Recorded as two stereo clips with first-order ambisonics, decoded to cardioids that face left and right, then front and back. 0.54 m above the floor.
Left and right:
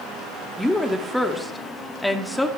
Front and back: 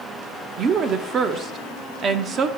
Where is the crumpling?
No crumpling in this recording.